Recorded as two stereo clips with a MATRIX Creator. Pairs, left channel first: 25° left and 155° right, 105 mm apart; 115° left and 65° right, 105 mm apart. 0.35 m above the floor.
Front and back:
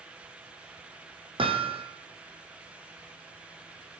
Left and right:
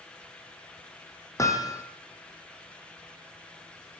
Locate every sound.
1.4 s hammering: 170° left, 3.5 m